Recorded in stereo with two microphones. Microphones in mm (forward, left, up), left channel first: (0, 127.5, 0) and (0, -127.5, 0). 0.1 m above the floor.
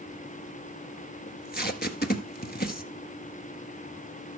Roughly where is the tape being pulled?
Left.